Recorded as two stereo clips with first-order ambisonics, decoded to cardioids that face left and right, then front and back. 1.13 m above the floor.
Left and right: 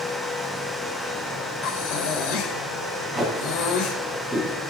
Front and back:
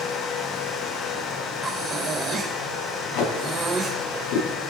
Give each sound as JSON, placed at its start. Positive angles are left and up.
{"t": 1.6, "sound": "breathing", "azimuth_deg": 105, "distance_m": 3.5}
{"t": 3.1, "sound": "tape being pulled", "azimuth_deg": 5, "distance_m": 5.0}